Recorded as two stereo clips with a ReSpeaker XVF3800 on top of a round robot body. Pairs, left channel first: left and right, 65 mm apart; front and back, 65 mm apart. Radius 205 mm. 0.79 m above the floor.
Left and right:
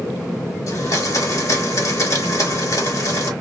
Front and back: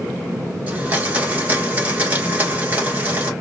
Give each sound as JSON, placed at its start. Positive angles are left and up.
{"t": 0.7, "sound": "a blender", "azimuth_deg": 115, "distance_m": 1.5}